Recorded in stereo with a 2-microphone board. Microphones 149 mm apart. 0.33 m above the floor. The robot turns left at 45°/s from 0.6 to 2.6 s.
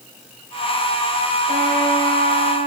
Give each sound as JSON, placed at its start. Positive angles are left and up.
{"t": 1.5, "sound": "a trumpet", "azimuth_deg": -70, "distance_m": 8.5}